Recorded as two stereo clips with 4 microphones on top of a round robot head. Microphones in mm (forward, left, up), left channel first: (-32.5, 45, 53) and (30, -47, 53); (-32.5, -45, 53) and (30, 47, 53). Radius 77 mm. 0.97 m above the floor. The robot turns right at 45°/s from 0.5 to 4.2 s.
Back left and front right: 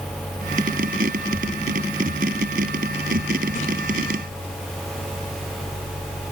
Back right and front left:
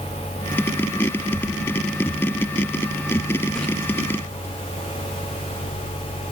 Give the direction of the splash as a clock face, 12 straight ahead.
7 o'clock.